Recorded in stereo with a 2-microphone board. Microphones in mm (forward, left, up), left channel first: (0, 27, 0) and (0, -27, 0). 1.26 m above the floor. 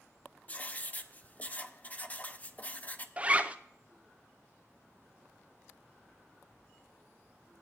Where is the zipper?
25° right (ahead or behind), 0.6 m.